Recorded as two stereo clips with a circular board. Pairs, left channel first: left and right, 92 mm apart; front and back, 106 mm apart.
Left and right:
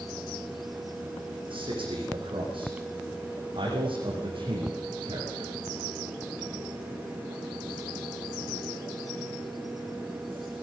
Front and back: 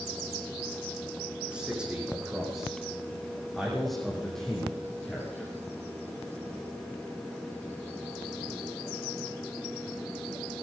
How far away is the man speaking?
About 8.5 m.